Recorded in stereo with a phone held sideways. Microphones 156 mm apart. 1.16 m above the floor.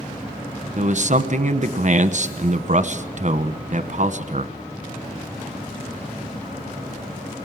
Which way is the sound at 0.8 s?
50° right (ahead or behind).